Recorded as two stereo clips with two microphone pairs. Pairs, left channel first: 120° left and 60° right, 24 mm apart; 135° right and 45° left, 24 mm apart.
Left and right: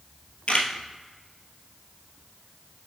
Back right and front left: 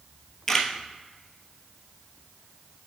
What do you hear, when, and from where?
0.5 s a camera shutter: 150° left, 0.8 m